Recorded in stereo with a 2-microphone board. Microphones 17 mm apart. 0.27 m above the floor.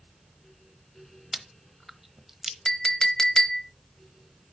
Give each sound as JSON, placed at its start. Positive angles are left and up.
{"t": 1.3, "sound": "chewing", "side_deg": -5, "distance_m": 0.8}
{"t": 2.6, "sound": "a clink", "side_deg": 35, "distance_m": 0.7}